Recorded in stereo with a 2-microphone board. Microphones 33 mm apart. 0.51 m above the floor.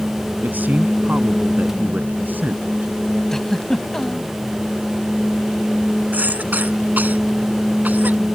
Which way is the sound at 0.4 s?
70° right (ahead or behind).